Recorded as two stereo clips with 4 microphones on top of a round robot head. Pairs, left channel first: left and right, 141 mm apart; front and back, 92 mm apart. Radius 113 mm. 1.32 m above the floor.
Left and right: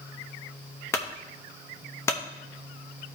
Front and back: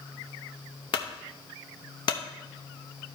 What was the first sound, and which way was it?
A clunk, 20° left.